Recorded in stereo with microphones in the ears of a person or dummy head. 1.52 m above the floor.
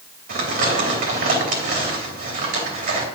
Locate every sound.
0.3 s crumpling: 50° right (ahead or behind), 3 m